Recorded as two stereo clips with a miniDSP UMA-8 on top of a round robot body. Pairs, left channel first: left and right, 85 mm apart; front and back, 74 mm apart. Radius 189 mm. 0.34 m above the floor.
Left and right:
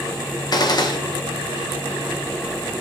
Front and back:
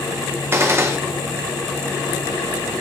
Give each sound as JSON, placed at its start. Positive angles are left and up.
{"t": 0.5, "sound": "a gunshot", "azimuth_deg": 130, "distance_m": 1.5}